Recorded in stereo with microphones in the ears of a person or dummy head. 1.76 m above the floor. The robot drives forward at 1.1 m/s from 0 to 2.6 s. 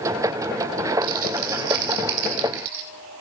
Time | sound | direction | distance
1.0 | crumpling | 45° right (ahead or behind) | 3 m